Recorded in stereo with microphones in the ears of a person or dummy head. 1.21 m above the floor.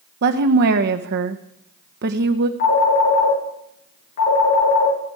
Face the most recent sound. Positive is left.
turn(degrees=40)  # may be behind; listen again after turning